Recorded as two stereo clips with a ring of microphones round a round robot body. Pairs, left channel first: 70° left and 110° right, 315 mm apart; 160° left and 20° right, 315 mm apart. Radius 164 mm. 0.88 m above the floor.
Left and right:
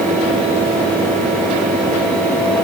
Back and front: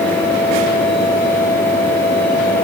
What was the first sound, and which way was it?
Only background noise.